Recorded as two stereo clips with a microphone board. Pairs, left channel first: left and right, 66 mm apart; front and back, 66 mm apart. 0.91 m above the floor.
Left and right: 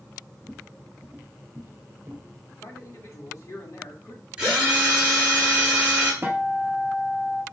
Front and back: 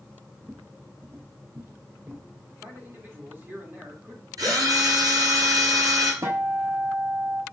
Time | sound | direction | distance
0.4 | footsteps | 120° left | 1.0 m
2.6 | a man speaking | 125° left | 2 m
4.4 | a drill | 165° right | 4 m
6.2 | a guitar | 145° right | 1.2 m